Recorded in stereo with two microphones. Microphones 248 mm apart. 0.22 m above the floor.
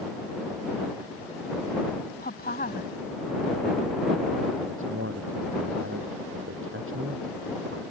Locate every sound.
2.2 s a woman speaking: 40° left (ahead or behind)
4.6 s a man speaking: 55° right (ahead or behind)